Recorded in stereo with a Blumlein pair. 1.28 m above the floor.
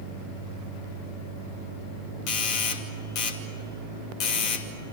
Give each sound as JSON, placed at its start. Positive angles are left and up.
{"t": 2.3, "sound": "a doorbell", "azimuth_deg": 40, "distance_m": 2.5}